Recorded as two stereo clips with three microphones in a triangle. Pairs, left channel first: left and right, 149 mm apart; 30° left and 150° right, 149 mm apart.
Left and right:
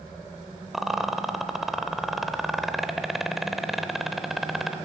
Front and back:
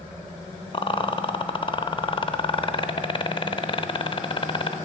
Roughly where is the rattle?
Ahead.